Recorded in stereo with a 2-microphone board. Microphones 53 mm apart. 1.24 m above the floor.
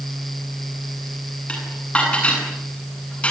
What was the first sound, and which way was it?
Dishes clattering, 25° left (ahead or behind).